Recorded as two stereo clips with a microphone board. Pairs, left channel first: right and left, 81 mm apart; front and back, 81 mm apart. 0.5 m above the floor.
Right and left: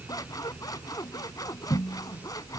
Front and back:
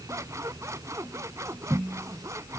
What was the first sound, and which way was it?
Scissors, 130° right.